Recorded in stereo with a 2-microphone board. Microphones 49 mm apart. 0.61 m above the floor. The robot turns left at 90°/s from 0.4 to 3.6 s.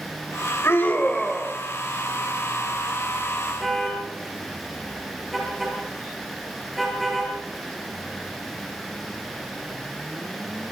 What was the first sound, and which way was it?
A scream, 65° left.